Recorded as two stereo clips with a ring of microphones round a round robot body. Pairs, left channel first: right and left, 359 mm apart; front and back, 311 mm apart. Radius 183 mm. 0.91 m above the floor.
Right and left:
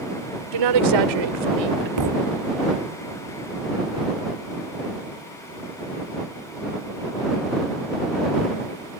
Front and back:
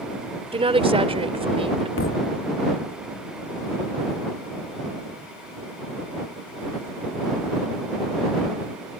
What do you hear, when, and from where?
0.5 s a woman speaking: 110° left
2.0 s a thud: 50° left